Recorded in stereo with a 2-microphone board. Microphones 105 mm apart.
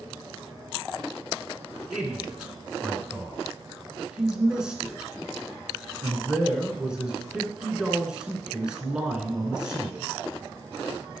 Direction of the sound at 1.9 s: 10° right (ahead or behind).